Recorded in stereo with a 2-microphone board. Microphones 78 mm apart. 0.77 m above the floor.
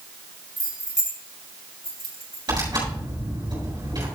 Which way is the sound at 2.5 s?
65° right (ahead or behind).